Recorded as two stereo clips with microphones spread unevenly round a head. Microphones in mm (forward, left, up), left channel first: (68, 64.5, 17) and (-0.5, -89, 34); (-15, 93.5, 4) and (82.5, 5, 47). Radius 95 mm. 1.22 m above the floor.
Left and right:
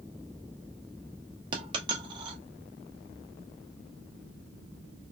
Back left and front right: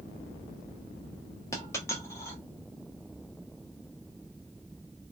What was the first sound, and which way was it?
A dropped coin, 130° right.